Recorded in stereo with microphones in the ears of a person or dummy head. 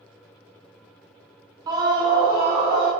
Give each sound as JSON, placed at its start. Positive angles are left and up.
{"t": 1.7, "sound": "a scream", "side_deg": -20, "distance_m": 0.7}